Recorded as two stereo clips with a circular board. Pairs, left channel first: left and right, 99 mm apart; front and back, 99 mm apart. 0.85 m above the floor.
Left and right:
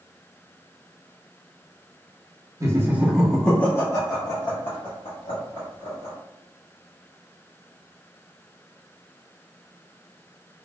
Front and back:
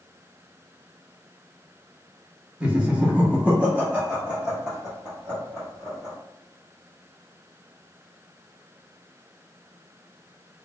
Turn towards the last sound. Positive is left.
turn(degrees=95)